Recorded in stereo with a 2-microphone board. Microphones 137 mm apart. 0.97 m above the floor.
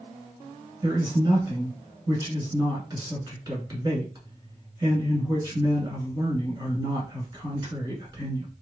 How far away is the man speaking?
About 1.7 m.